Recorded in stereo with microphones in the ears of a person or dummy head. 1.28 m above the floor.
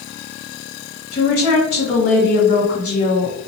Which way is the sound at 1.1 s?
40° left (ahead or behind).